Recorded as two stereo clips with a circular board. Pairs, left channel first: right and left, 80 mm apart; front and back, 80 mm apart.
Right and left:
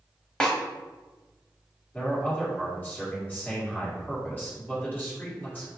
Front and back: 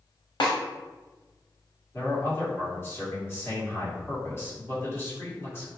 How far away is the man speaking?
About 1.2 m.